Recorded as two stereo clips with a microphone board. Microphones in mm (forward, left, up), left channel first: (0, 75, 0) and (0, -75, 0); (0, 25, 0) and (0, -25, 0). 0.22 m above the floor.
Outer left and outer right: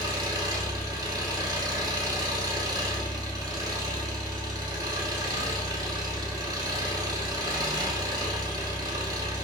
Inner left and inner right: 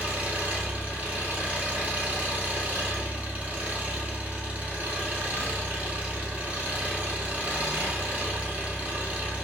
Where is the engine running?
25° right (ahead or behind), 0.9 m.